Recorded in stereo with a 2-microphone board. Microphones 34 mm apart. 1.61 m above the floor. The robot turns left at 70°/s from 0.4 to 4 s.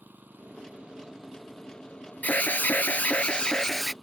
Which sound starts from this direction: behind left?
An alarm, at 2.2 s.